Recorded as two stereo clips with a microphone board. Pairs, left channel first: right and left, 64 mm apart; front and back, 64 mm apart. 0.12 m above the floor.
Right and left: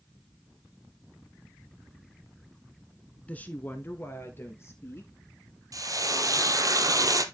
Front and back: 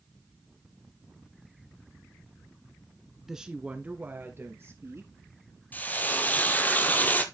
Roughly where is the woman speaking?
Right.